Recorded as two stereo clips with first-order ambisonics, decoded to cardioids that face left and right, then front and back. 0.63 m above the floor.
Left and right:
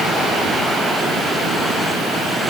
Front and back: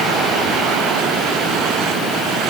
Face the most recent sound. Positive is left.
No sound to turn to.